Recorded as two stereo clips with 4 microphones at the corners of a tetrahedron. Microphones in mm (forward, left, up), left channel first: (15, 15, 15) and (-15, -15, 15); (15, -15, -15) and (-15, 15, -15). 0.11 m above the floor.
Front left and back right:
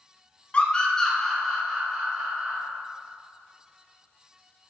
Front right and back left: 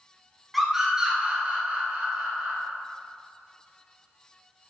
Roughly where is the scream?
Ahead left.